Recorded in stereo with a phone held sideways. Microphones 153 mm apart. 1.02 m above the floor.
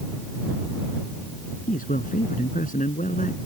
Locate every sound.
1.7 s a man speaking: 65° left (ahead or behind); by 3.4 s 55° left (ahead or behind)